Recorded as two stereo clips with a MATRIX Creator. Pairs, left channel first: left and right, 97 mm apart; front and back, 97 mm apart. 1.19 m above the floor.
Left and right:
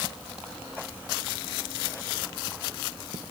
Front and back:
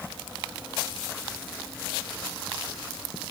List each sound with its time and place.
Only background noise.